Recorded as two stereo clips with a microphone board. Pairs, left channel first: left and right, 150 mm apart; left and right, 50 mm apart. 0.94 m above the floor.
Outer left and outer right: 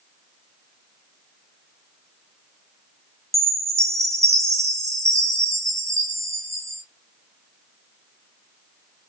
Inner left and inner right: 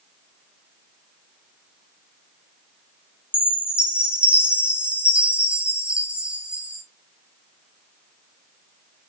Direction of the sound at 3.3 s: 20° right (ahead or behind).